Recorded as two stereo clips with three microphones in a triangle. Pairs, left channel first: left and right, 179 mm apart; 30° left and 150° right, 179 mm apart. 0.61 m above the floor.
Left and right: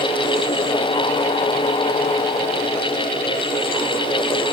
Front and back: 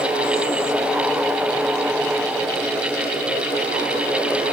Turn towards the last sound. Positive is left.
No sound to turn to.